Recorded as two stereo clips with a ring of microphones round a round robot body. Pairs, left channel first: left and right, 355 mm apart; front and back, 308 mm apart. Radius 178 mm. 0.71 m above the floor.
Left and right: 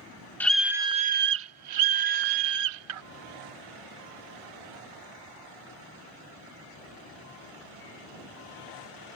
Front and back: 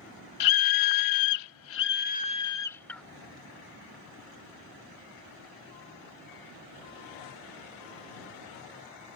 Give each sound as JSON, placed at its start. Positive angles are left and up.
{"t": 0.4, "sound": "a scream", "azimuth_deg": 5}